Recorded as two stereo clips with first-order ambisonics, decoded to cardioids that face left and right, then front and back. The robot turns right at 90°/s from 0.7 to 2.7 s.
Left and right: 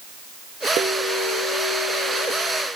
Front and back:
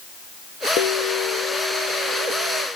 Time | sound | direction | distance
0.8 | a bell | 40° right | 2.5 m